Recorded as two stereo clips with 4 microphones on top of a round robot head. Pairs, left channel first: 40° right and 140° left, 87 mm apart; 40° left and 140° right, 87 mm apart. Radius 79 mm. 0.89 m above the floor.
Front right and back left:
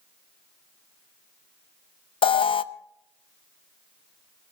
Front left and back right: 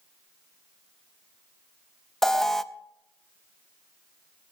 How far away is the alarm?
About 0.7 m.